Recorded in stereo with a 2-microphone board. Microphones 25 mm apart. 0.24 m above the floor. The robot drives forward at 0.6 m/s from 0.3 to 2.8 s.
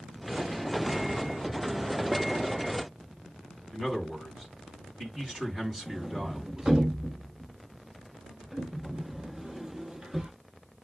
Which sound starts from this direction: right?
A sliding door, at 5.9 s.